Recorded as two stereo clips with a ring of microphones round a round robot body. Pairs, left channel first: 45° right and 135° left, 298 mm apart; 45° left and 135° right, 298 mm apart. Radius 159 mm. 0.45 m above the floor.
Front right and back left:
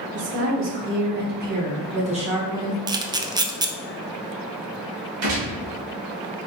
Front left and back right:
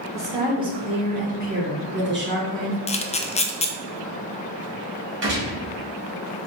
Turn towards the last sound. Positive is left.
turn(degrees=175)